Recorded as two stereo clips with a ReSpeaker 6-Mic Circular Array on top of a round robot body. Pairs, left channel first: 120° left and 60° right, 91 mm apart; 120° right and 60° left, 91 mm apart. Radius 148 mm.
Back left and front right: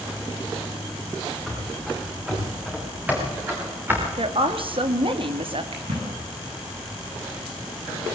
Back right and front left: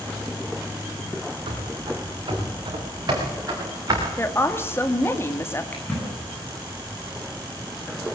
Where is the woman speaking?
55° right, 2.5 m.